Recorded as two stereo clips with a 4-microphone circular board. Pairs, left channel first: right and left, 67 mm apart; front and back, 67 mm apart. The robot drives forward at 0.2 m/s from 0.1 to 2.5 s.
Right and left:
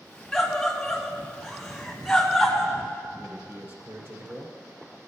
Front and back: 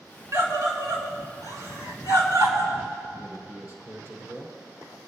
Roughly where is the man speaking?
Behind left.